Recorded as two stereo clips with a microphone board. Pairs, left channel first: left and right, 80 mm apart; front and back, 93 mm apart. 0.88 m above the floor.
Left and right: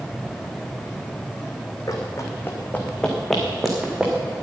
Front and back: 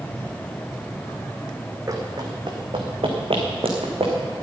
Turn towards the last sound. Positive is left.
turn(degrees=-165)